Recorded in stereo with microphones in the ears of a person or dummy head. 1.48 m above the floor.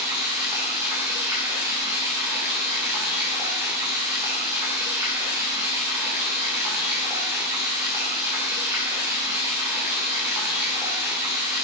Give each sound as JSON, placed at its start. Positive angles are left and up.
{"t": 0.0, "sound": "running water", "side_deg": -15, "distance_m": 3.0}